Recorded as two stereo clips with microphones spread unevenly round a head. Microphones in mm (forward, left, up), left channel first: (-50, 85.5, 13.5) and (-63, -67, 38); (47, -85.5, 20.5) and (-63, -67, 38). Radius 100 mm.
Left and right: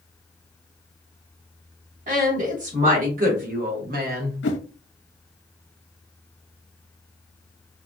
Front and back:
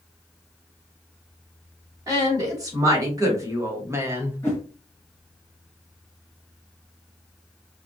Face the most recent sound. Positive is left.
turn(degrees=75)